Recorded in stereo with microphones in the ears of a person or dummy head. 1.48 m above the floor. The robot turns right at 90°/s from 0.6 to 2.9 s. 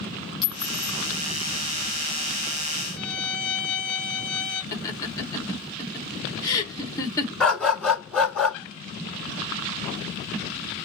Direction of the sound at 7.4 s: 5° left (ahead or behind).